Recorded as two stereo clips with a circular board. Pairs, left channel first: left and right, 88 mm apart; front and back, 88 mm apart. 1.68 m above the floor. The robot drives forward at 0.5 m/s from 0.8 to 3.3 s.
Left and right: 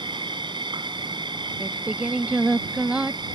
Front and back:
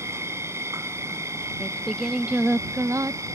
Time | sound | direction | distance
0.0 | an insect | 120° right | ?
1.6 | singing | 45° right | ?